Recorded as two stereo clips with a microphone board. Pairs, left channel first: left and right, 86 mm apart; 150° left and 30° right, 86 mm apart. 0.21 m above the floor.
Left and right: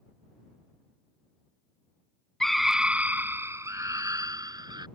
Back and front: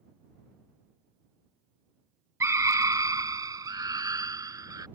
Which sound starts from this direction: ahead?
A scream, at 2.4 s.